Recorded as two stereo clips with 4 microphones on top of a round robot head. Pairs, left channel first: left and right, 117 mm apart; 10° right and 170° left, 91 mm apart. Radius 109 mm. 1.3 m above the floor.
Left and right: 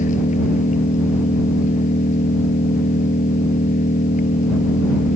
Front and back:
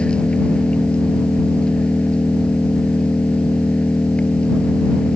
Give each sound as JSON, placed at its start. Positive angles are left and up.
{"t": 0.0, "sound": "an engine running", "azimuth_deg": 70}